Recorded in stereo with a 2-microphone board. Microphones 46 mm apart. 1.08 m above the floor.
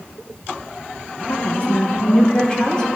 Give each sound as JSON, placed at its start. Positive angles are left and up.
{"t": 1.3, "sound": "a woman speaking", "side_deg": 40, "distance_m": 0.7}